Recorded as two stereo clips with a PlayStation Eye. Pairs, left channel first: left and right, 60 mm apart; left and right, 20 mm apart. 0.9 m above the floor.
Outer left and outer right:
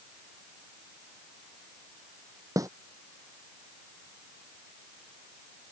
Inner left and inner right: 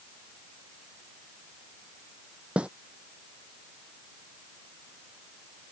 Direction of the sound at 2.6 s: 65° right (ahead or behind).